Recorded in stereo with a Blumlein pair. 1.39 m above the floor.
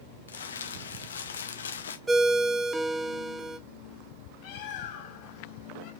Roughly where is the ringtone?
Ahead.